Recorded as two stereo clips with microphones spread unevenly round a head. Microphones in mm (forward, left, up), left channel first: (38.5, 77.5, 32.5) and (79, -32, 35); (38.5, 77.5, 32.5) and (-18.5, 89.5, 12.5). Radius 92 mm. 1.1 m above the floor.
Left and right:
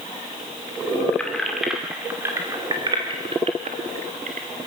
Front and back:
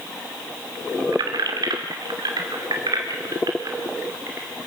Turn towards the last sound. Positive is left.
turn(degrees=-115)